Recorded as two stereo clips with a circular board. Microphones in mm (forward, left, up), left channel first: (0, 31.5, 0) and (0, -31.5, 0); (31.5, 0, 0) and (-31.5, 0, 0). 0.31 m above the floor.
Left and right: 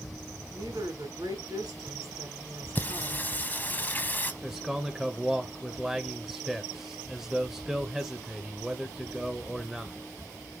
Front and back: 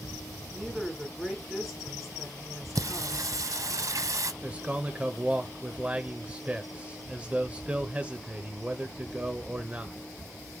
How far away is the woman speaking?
About 3.5 m.